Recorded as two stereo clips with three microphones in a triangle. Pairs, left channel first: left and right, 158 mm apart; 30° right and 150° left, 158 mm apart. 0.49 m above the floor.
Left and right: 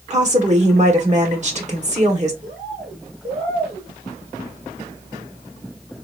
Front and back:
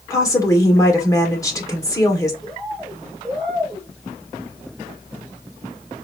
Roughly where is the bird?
Behind right.